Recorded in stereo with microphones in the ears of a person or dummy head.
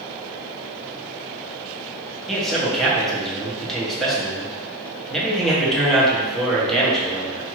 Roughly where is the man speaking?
Centre.